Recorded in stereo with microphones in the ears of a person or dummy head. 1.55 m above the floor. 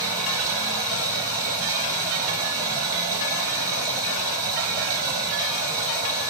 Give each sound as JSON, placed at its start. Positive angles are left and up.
{"t": 0.0, "sound": "running water", "side_deg": -15, "distance_m": 1.3}